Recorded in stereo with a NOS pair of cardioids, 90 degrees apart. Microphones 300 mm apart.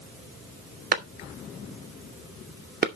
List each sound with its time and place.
0.9 s a clap: 30° right, 2.5 m